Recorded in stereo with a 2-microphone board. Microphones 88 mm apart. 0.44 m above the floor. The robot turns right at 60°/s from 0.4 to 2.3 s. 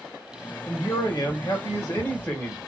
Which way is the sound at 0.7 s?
55° left.